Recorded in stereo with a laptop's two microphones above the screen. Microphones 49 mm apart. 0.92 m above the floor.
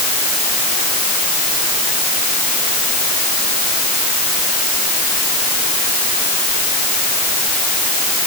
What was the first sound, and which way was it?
Only background noise.